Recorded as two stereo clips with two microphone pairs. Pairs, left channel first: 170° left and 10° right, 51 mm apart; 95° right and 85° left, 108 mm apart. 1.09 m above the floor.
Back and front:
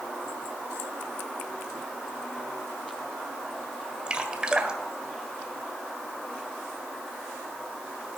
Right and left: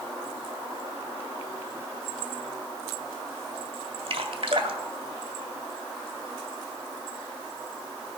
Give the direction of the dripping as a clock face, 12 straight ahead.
10 o'clock.